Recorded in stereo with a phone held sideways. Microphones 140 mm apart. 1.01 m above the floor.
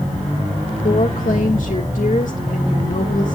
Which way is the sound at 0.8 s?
65° left (ahead or behind).